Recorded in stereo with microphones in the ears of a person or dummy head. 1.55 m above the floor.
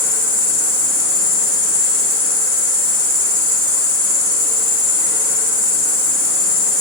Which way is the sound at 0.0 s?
45° right (ahead or behind).